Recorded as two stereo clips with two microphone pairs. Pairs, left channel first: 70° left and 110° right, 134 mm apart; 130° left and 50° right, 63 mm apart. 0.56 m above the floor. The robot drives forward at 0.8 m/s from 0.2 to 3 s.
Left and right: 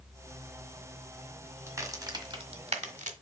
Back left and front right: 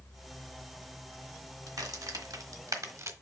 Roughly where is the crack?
Ahead right.